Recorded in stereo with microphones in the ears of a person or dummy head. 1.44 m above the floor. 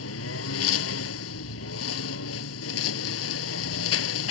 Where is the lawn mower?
80° left.